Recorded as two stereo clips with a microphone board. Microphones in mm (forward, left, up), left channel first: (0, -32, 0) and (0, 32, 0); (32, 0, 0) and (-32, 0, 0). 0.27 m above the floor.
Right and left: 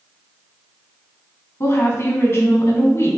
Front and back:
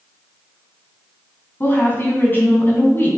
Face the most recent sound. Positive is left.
turn(degrees=-50)